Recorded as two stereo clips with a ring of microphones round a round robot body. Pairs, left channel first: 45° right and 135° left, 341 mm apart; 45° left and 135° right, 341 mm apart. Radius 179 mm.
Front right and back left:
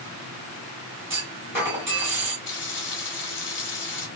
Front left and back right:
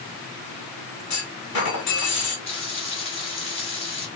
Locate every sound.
1.1 s a clunk: 55° left, 1.9 m
2.5 s frying: 20° right, 1.1 m